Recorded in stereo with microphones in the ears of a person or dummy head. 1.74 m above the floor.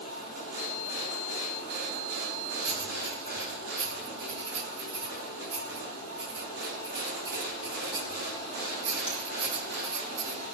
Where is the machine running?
70° right (ahead or behind), 8.5 m.